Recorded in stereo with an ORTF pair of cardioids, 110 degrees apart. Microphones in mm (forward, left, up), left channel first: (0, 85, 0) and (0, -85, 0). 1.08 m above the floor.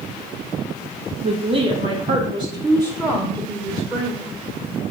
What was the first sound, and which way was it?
A woman speaking, 35° right.